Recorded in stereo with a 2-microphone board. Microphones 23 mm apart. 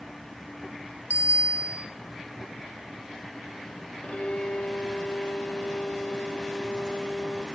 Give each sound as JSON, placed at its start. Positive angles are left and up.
{"t": 1.1, "sound": "a bicycle bell", "side_deg": -75, "distance_m": 3.0}
{"t": 4.0, "sound": "a violin", "side_deg": 60, "distance_m": 3.5}